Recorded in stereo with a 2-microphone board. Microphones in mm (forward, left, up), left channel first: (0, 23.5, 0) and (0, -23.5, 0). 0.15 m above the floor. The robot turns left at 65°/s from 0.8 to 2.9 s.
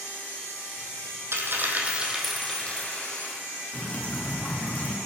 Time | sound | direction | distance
1.3 | a dropped coin | 115° right | 1.4 m
3.7 | dripping | 35° left (ahead or behind) | 1.9 m